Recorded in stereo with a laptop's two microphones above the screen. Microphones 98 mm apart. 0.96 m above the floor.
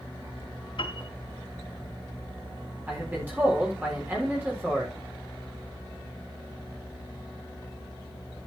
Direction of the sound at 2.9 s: 20° right (ahead or behind).